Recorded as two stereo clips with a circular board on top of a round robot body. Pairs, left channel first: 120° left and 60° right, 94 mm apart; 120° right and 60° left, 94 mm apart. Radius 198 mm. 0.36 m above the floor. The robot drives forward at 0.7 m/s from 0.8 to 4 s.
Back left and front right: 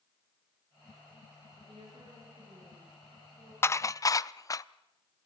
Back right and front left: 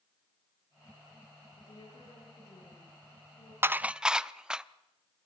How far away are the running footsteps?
I don't hear running footsteps.